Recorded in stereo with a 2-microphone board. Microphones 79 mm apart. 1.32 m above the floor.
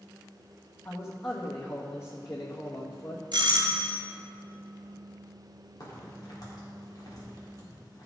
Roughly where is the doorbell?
Right.